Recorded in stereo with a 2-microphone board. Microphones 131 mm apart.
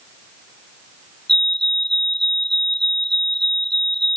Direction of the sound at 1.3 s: 50° left (ahead or behind).